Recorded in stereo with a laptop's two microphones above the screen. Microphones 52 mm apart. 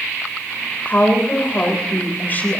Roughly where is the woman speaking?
Left.